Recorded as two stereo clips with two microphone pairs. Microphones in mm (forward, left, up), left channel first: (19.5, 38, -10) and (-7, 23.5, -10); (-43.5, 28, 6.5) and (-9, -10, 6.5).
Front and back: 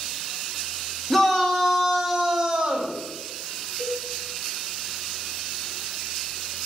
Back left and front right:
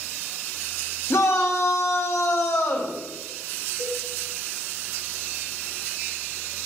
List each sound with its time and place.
1.1 s a shout: 110° left, 2.5 m; by 3.0 s 145° left, 2 m
3.8 s a cowbell: 135° left, 2.5 m